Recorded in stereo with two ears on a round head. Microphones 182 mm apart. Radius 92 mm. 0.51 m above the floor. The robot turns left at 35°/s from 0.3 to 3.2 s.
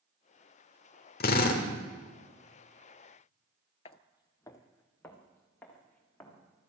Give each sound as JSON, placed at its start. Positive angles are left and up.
{"t": 1.2, "sound": "a drill", "side_deg": 45, "distance_m": 1.7}
{"t": 3.9, "sound": "footsteps", "side_deg": 30, "distance_m": 0.5}